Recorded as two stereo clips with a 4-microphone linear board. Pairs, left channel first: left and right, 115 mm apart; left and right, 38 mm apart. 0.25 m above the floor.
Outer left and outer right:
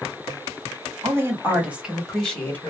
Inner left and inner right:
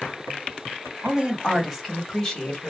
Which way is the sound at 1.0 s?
25° right (ahead or behind).